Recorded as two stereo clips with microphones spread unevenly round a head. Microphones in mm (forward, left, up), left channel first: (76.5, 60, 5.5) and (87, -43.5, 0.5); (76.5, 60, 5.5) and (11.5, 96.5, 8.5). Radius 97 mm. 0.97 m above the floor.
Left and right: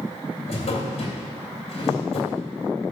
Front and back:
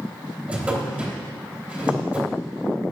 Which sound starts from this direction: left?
A drawer, at 0.5 s.